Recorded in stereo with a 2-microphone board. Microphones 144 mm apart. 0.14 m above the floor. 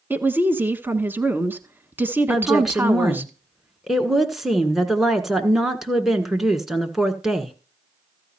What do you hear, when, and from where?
0.1 s a woman speaking: 15° right (ahead or behind), 1.1 m
2.3 s a woman speaking: centre (ahead or behind), 1.6 m